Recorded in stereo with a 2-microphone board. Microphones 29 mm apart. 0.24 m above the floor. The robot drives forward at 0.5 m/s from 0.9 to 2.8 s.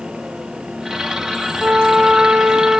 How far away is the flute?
About 0.8 m.